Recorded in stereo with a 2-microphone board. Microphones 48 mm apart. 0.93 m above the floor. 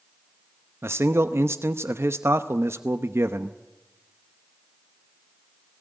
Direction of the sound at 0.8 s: 65° right (ahead or behind).